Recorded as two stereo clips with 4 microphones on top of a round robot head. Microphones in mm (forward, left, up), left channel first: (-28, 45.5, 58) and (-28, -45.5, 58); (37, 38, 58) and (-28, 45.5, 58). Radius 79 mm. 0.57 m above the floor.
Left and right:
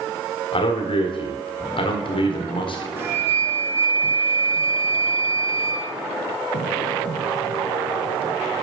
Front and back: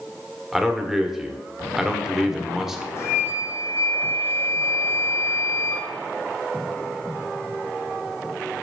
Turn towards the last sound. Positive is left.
turn(degrees=-35)